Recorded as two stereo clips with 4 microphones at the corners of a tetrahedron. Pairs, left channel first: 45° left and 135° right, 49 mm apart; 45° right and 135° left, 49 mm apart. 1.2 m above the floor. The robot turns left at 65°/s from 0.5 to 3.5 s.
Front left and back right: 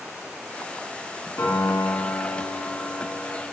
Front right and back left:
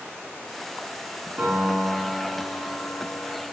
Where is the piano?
95° left, 2.5 m; by 3.4 s 40° right, 2.5 m.